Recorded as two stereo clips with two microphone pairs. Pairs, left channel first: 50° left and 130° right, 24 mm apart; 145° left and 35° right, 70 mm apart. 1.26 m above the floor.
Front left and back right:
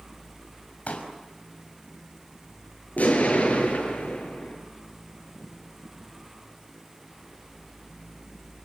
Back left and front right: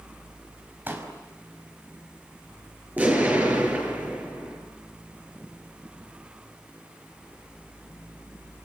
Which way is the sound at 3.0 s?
35° left.